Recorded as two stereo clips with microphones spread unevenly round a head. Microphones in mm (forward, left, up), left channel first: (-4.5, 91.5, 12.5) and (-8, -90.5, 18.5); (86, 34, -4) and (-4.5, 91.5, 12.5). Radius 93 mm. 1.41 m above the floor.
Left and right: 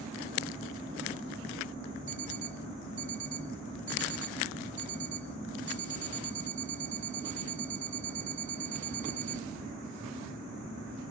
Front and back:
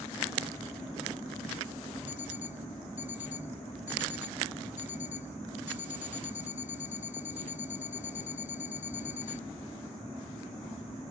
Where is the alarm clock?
40° right.